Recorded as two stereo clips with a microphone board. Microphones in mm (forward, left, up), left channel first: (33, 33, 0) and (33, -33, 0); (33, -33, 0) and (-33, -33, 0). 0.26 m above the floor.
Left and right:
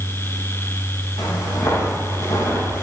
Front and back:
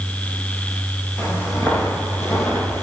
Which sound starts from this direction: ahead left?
Footsteps, at 1.2 s.